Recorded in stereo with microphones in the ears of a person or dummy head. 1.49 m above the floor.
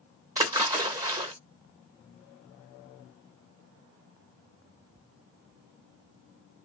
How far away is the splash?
About 0.8 m.